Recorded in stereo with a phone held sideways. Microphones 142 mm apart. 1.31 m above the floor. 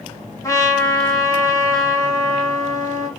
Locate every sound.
0.4 s a trumpet: 25° left (ahead or behind), 2.0 m